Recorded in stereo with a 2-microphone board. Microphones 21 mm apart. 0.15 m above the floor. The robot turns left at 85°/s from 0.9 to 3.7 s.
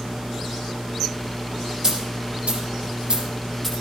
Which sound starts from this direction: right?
A dropped coin, at 1.8 s.